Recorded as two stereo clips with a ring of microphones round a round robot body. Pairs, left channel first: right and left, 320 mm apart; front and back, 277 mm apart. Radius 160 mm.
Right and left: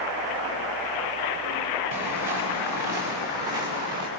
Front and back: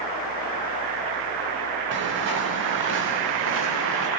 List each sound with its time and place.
1.9 s footsteps: 130° left, 9 m; by 4.1 s 135° left, 7.5 m